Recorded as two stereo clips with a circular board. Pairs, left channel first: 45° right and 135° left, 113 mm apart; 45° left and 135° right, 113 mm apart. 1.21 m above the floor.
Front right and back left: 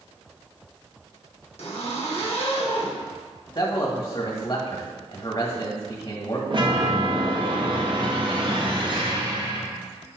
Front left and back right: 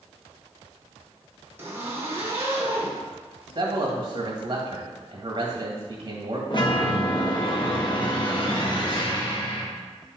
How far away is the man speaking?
About 1.6 m.